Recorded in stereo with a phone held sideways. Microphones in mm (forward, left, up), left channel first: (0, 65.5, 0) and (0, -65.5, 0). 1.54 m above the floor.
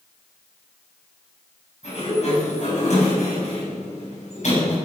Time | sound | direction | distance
1.8 | a sliding door | 65° left (ahead or behind) | 7.5 m